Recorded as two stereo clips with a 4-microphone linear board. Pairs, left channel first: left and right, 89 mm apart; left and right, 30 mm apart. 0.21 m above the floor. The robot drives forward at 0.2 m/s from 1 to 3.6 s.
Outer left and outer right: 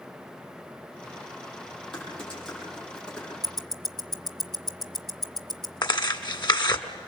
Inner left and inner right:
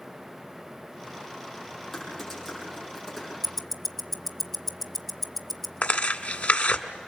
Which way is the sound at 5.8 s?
55° left (ahead or behind).